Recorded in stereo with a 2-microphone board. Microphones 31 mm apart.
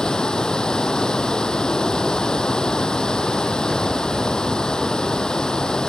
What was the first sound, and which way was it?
Running water, 25° left (ahead or behind).